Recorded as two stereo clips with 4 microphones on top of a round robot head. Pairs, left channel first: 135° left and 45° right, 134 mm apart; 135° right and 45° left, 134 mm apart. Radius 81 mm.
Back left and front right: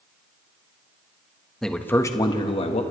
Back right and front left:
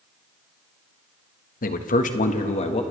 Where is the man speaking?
135° right, 1.4 m; by 2.8 s 175° left, 1.6 m.